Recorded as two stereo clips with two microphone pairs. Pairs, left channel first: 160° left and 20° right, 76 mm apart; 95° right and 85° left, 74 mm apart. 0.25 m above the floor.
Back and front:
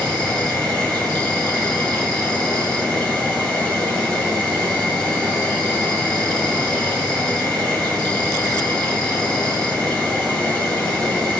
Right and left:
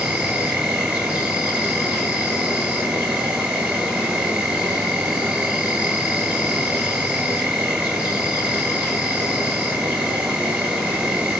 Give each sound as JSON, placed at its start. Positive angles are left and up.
{"t": 0.0, "sound": "an insect", "azimuth_deg": 105, "distance_m": 1.3}